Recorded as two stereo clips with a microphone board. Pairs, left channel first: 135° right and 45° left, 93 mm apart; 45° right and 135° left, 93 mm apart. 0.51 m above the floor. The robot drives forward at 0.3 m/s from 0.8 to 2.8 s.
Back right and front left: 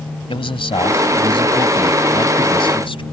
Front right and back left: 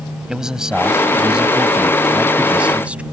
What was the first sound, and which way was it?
A man speaking, 140° right.